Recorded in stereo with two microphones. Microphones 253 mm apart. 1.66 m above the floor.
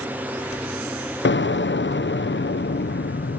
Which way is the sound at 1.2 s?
50° left (ahead or behind).